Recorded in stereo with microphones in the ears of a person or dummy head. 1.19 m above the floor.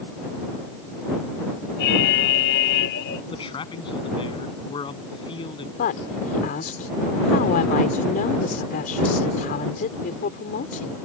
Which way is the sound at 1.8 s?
65° left (ahead or behind).